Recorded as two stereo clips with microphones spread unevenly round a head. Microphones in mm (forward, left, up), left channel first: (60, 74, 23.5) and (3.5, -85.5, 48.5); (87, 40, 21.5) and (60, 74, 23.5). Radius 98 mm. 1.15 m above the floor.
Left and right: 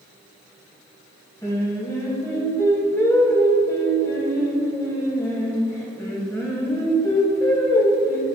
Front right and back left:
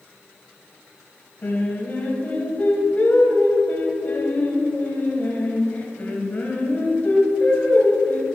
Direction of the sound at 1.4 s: 5° right.